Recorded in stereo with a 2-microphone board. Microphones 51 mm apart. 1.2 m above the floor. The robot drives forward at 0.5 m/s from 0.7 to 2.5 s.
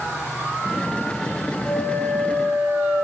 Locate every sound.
1.6 s a flute: 50° left (ahead or behind), 4.5 m; by 3.0 s 45° left (ahead or behind), 4.5 m